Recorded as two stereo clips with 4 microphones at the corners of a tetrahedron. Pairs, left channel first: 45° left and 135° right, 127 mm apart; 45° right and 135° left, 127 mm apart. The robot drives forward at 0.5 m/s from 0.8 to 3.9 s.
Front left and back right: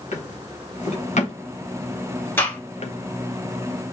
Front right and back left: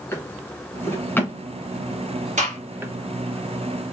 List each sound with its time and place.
0.1 s a drawer: 25° left, 1.5 m; by 2.9 s 70° left, 0.7 m
2.4 s a gunshot: 120° left, 2.5 m